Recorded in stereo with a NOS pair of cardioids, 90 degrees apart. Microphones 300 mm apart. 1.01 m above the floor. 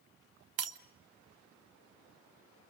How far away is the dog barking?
I don't hear a dog barking.